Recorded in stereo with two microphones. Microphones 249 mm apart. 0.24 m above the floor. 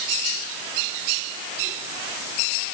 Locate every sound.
Only background noise.